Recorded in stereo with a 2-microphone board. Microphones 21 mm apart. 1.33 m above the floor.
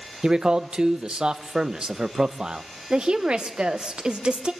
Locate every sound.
0.2 s a man speaking: 45° right (ahead or behind), 0.7 m
2.9 s a woman speaking: 50° right (ahead or behind), 1.3 m